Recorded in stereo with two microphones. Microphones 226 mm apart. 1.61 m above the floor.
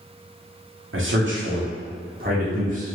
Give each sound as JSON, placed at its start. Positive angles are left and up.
{"t": 0.9, "sound": "a man speaking", "side_deg": -65, "distance_m": 1.0}